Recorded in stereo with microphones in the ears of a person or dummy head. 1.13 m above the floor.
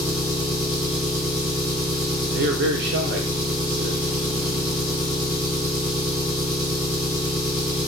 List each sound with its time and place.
0.0 s an engine running: 10° right (ahead or behind), 1.0 m
2.3 s a man speaking: 50° right (ahead or behind), 0.5 m